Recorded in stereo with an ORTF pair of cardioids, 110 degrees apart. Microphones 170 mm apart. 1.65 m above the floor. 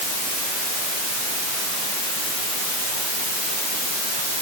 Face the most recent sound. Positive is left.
No sound to turn to.